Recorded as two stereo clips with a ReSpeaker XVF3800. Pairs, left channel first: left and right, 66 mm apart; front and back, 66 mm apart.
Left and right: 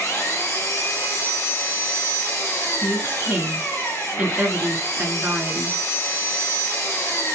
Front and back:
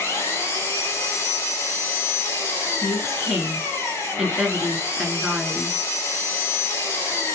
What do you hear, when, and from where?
0.0 s an engine running: 40° left, 2.5 m
2.8 s a woman speaking: 110° right, 1.1 m